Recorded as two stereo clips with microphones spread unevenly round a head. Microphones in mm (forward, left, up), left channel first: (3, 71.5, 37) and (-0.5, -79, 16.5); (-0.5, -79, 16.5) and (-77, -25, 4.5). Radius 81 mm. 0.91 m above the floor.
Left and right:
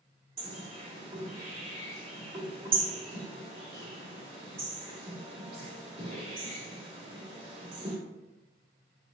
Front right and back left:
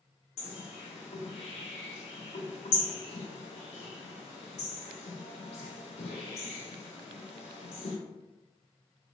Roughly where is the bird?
Ahead right.